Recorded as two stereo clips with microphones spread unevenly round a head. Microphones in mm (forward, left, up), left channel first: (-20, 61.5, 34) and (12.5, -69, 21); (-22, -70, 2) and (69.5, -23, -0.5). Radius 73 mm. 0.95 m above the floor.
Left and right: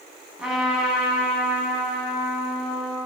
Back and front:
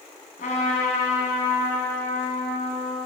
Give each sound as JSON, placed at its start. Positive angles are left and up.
{"t": 0.4, "sound": "a trumpet", "azimuth_deg": -165, "distance_m": 6.5}